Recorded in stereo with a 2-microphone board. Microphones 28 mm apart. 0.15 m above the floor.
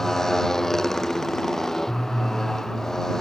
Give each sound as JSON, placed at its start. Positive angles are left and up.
{"t": 0.0, "sound": "a motorcycle", "side_deg": 10}